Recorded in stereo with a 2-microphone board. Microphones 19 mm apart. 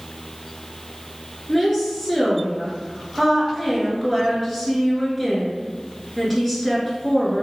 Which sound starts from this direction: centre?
A woman speaking, at 1.5 s.